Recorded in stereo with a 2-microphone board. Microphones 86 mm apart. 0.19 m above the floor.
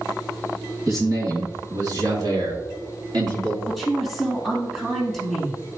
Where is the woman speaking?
5° right (ahead or behind), 2 m.